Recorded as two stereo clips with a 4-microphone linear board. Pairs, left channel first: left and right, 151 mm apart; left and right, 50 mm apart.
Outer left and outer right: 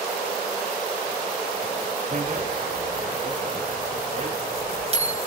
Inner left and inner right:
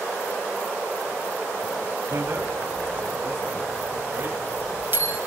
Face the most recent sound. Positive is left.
turn(degrees=-40)  # may be behind; listen again after turning